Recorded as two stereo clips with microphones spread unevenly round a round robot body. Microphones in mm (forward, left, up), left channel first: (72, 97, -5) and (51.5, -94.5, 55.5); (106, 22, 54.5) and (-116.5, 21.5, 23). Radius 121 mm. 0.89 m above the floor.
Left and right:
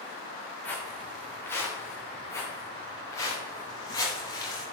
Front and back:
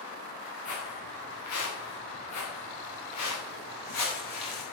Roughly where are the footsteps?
Ahead.